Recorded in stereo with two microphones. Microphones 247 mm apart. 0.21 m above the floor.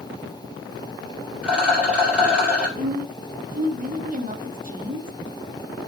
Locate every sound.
1.4 s a rattle: 5° right (ahead or behind), 4.5 m
2.8 s a woman speaking: 35° right (ahead or behind), 1.3 m